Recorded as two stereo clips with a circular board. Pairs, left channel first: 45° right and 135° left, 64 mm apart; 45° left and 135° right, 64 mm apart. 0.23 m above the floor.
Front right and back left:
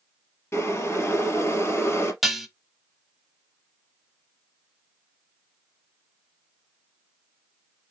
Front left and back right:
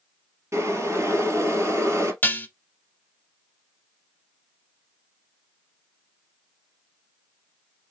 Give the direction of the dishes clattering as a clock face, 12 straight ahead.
10 o'clock.